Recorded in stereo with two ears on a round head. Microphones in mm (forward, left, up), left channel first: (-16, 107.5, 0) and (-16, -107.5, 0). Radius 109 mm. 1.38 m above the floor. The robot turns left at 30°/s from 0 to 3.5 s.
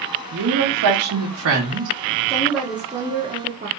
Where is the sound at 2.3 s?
10° left, 1.0 m; by 3.7 s 25° right, 1.0 m.